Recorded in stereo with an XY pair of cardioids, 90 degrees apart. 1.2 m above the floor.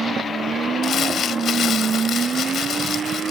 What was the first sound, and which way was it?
Crumpling, 65° left.